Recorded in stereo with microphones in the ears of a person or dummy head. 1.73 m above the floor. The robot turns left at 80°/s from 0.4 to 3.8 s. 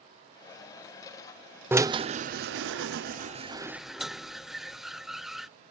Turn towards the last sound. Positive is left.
turn(degrees=0)  # may be behind; listen again after turning